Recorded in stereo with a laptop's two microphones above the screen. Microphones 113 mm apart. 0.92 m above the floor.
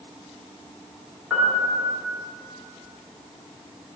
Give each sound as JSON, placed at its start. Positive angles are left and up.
{"t": 1.3, "sound": "a piano", "side_deg": -10, "distance_m": 1.4}